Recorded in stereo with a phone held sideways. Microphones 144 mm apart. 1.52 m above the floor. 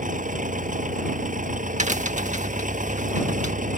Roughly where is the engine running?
Right.